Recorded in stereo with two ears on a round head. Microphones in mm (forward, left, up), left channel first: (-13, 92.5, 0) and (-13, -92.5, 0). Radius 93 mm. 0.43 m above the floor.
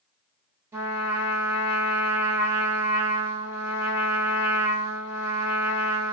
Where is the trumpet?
15° right (ahead or behind), 1.0 m.